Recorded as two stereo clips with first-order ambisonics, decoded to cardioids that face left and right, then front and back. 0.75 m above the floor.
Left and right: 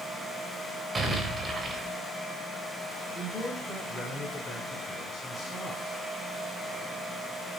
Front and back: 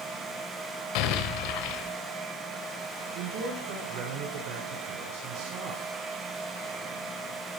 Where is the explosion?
15° right, 3 m.